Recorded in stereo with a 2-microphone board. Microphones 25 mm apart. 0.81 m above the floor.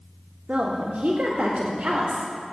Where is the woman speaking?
70° right (ahead or behind), 1.6 m.